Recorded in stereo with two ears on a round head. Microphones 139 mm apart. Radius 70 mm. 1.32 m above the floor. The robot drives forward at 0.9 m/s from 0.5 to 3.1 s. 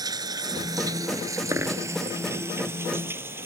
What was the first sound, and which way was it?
Running water, 25° right (ahead or behind).